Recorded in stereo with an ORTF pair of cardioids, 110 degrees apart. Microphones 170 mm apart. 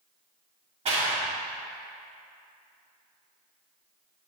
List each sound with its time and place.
0.8 s a clap: 40° right, 2 m